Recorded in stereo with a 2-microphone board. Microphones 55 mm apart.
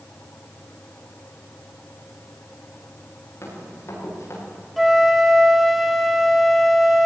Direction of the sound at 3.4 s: 55° left (ahead or behind).